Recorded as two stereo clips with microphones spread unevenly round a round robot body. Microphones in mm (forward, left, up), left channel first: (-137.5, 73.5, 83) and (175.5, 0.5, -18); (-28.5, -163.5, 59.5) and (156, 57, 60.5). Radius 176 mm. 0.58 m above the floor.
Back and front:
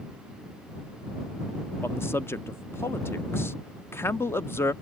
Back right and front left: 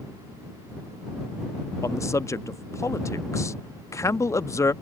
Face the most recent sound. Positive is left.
turn(degrees=-70)